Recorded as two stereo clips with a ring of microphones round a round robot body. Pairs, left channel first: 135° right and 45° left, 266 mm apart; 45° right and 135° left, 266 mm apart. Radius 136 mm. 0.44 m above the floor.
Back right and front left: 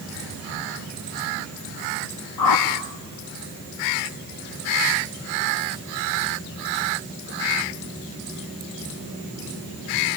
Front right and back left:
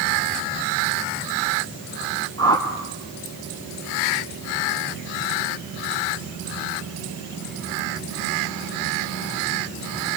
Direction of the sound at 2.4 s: 120° right.